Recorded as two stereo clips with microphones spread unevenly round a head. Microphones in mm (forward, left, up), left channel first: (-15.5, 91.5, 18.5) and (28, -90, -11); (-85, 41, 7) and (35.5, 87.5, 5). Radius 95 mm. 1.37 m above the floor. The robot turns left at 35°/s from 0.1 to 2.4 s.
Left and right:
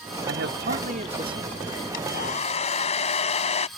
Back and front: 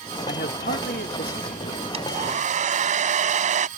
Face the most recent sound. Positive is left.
turn(degrees=45)